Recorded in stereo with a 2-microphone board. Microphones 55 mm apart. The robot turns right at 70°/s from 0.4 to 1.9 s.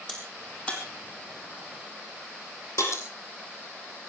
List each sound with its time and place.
0.1 s a crack: 5° left (ahead or behind), 5 m; by 3.0 s 65° left (ahead or behind), 5 m